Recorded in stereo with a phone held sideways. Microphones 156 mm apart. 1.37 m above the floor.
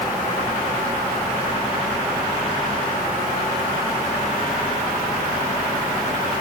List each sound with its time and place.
Only background noise.